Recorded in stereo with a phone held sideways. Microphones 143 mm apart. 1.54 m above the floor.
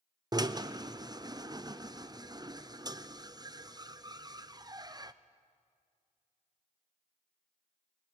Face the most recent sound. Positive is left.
turn(degrees=-30)  # may be behind; listen again after turning